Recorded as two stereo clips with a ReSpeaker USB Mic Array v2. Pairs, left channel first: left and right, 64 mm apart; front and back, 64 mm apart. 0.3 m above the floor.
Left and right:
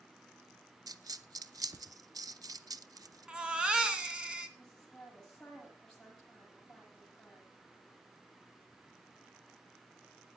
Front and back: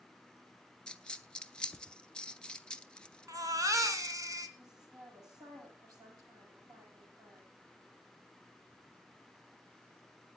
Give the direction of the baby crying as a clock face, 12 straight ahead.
5 o'clock.